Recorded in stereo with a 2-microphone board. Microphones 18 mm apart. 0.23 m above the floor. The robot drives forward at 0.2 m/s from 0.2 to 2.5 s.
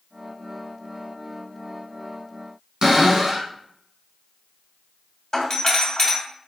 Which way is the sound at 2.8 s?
40° right (ahead or behind).